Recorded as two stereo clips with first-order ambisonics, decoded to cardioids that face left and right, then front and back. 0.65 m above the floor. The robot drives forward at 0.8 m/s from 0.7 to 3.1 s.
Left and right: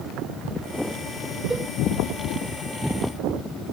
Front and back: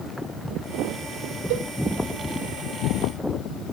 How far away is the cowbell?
About 0.8 m.